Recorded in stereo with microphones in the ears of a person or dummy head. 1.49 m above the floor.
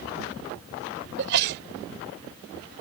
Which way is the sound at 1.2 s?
60° right (ahead or behind).